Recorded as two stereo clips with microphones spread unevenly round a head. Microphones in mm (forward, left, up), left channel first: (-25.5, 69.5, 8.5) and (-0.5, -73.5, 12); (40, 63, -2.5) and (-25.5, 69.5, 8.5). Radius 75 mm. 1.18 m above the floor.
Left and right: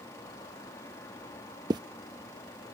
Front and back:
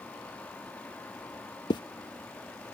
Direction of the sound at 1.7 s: 15° right.